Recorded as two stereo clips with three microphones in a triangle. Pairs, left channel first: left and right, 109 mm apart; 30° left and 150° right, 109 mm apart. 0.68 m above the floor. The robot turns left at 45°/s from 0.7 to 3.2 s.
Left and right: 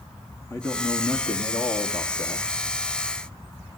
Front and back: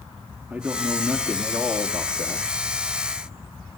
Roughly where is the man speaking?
Behind left.